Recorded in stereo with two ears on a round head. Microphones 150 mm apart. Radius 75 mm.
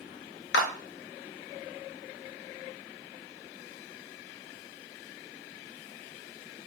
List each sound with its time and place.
0.5 s a clap: 70° left (ahead or behind), 0.5 m